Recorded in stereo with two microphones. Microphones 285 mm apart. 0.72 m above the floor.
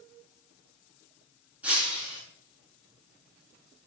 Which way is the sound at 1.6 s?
5° right (ahead or behind).